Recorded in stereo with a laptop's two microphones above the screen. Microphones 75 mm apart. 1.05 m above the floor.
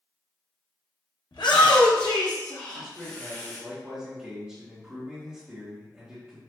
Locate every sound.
1.3 s a shout: 80° left, 0.8 m; by 3.6 s 40° left (ahead or behind), 1.5 m
2.7 s a man speaking: 20° right (ahead or behind), 1.1 m